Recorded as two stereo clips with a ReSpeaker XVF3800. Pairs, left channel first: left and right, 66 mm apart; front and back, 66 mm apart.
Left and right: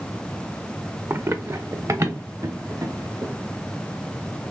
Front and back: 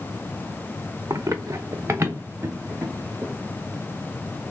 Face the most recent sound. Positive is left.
turn(degrees=-125)